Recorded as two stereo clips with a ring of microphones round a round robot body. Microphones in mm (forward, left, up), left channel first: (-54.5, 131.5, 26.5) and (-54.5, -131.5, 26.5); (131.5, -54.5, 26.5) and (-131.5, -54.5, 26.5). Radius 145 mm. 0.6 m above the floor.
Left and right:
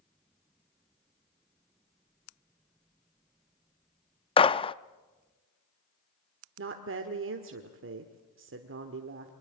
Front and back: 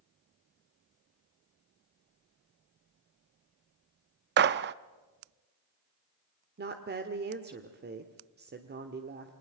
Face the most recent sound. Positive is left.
turn(degrees=-130)